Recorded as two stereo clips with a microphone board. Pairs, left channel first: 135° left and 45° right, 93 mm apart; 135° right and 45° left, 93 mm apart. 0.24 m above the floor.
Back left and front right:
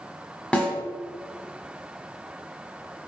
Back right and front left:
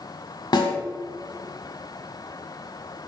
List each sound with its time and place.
0.5 s a snare drum: 150° right, 1.5 m